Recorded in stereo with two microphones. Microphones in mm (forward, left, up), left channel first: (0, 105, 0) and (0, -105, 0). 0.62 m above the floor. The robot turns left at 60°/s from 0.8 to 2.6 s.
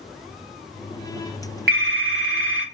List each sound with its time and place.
1.7 s a phone ringing: 50° right, 1.0 m; by 2.6 s 110° right, 1.0 m